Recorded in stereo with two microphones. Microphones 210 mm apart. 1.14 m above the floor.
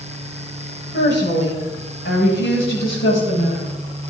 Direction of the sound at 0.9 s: 60° left (ahead or behind).